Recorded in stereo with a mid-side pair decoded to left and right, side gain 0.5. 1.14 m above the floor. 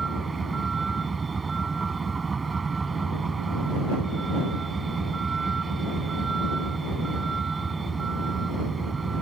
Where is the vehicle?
25° right.